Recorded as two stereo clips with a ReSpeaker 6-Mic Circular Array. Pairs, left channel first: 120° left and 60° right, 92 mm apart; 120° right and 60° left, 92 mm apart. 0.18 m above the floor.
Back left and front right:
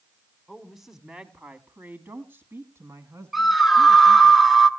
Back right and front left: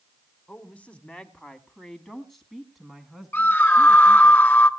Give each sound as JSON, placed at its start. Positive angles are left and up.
{"t": 0.5, "sound": "a woman speaking", "azimuth_deg": -155, "distance_m": 1.6}
{"t": 3.3, "sound": "a scream", "azimuth_deg": -145, "distance_m": 1.3}